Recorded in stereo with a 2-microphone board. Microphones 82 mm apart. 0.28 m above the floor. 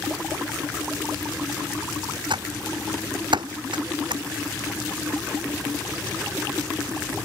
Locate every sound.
2.3 s typing on a keyboard: 85° right